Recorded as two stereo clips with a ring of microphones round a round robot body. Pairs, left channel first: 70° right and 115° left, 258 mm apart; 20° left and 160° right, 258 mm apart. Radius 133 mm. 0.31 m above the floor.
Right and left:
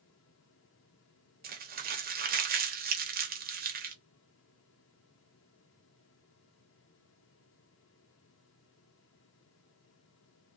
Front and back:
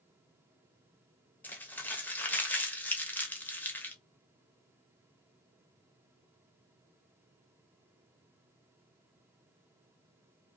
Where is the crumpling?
100° left, 0.8 m.